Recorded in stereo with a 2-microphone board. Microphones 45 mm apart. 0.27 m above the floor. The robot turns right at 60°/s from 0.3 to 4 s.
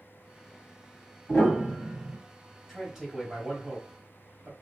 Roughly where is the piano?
Behind left.